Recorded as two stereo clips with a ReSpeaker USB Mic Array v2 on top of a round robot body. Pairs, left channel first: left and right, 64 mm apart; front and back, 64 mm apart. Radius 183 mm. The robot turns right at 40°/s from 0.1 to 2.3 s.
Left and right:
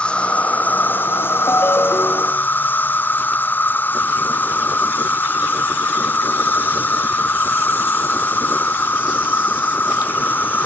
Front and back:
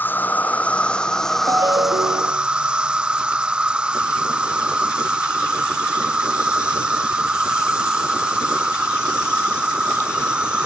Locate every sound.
0.0 s an insect: 30° left; by 10.7 s 115° left
1.5 s a ringtone: 140° left; by 2.5 s 170° left